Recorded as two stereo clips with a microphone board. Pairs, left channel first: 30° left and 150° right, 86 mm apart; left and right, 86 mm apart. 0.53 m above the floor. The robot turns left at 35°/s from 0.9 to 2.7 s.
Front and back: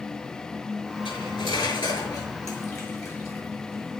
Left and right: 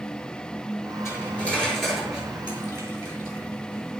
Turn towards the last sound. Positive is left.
turn(degrees=-30)